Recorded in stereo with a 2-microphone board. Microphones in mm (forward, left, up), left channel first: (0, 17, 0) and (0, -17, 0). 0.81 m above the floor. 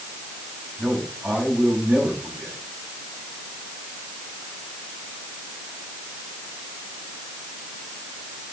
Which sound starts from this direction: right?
A man speaking, at 0.8 s.